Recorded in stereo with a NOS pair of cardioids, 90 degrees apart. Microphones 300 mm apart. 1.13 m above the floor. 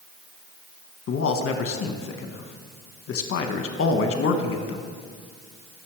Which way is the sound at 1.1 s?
45° left.